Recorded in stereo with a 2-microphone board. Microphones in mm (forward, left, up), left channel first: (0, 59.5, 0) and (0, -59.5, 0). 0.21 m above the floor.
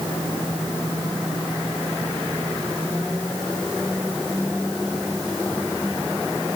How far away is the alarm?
I don't hear an alarm.